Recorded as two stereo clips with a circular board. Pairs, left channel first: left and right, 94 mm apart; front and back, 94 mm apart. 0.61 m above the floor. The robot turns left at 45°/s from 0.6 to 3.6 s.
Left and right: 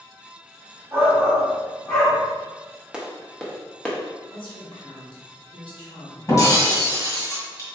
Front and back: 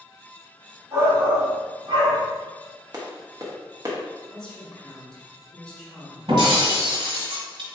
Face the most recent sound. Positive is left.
turn(degrees=145)